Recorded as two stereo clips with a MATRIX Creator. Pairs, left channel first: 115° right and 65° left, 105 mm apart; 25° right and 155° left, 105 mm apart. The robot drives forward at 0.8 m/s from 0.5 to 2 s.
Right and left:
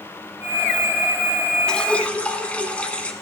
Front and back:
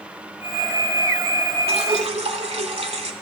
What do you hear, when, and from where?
1.7 s dripping: 165° left, 0.6 m; by 3.1 s 170° left, 0.9 m